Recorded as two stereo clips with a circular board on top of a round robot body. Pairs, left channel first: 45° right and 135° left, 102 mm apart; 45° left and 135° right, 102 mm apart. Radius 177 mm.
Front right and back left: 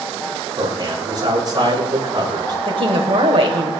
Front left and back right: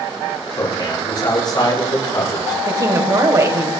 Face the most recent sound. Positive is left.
turn(degrees=170)